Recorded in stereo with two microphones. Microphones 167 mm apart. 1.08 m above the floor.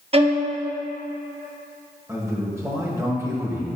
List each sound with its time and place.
0.1 s a violin: 35° right (ahead or behind), 0.8 m
2.1 s a man speaking: 15° right (ahead or behind), 1.3 m